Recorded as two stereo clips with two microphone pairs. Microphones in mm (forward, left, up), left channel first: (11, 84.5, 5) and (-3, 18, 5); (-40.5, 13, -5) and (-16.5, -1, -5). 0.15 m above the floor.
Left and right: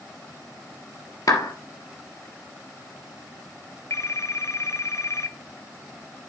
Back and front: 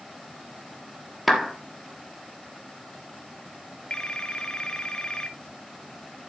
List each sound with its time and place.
1.3 s a clap: 55° left, 2.5 m
3.9 s a phone ringing: 95° left, 0.9 m